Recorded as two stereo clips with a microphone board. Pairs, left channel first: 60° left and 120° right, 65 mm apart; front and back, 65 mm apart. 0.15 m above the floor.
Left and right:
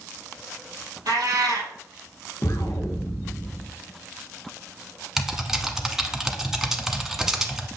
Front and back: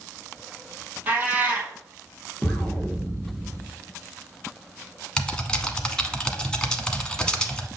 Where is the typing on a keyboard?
55° right, 1.0 m.